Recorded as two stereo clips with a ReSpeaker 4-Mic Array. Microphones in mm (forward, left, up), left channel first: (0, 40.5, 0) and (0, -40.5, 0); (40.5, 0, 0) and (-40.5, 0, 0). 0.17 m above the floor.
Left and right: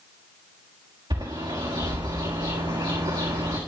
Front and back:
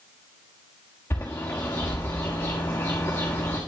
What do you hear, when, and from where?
1.1 s a bird: 60° right, 6 m